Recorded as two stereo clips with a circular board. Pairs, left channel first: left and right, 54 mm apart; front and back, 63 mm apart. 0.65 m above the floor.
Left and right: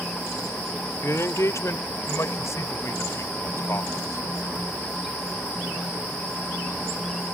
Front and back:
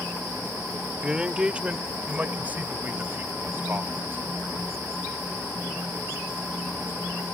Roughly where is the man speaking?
Left.